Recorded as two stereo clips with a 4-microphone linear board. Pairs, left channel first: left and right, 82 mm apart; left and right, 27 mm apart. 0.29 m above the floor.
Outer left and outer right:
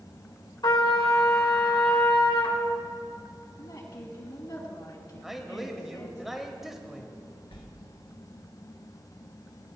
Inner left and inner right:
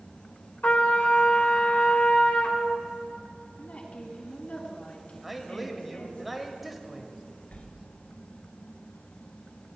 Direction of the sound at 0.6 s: 60° left (ahead or behind).